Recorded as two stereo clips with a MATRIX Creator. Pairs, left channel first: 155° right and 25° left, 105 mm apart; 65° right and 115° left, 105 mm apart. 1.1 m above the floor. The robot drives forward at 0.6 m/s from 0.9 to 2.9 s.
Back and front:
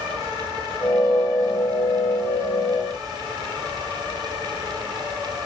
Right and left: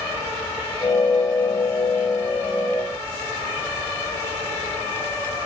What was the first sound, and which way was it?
Only background noise.